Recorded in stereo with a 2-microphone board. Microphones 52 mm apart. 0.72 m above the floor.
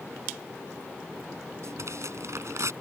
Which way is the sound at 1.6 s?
65° right (ahead or behind).